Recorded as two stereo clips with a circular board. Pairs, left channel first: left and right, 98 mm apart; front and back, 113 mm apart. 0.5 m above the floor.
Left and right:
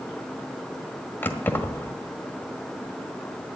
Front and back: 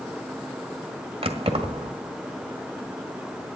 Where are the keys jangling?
155° left, 1.6 m.